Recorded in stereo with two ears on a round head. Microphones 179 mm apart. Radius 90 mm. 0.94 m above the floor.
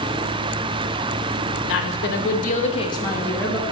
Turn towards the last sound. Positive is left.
turn(degrees=0)  # may be behind; listen again after turning